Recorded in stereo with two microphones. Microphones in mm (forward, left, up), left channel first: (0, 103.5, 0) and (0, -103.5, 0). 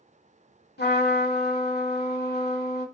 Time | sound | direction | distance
0.8 | a trumpet | 50° left (ahead or behind) | 0.7 m